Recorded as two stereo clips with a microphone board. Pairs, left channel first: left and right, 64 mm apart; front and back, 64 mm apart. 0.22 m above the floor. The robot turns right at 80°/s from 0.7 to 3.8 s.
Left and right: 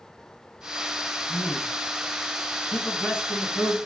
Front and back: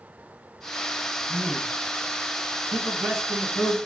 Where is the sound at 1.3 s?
100° right, 1.2 m; by 1.7 s 65° right, 1.2 m.